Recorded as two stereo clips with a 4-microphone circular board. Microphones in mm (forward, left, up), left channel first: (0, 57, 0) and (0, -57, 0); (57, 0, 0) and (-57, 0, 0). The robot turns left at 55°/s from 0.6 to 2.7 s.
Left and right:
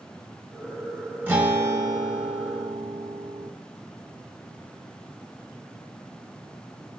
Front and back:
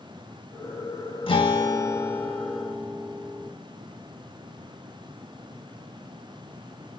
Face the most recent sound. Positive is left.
turn(degrees=-100)